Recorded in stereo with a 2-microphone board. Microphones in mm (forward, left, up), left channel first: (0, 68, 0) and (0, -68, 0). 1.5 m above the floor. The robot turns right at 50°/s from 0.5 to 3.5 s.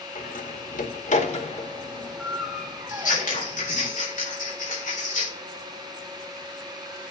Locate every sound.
0.1 s a door slam: 75° left (ahead or behind), 2 m; by 3.9 s 50° right (ahead or behind), 2 m
2.9 s scissors: 75° left (ahead or behind), 4.5 m